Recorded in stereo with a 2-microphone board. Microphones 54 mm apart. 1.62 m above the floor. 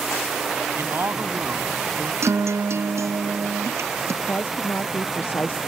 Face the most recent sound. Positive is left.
turn(degrees=40)  # may be behind; listen again after turning